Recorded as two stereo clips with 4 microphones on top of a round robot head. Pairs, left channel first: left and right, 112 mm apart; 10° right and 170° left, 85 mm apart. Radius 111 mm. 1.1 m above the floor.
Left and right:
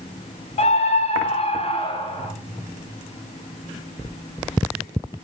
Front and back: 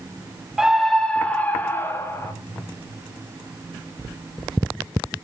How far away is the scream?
About 1.2 m.